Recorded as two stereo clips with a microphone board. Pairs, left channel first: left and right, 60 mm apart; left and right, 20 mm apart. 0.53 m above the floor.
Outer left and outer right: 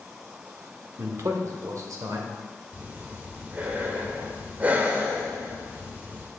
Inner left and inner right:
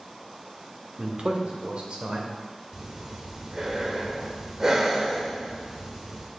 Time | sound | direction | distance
1.0 | a man speaking | 50° right (ahead or behind) | 1.0 m
2.7 | breathing | 25° right (ahead or behind) | 1.0 m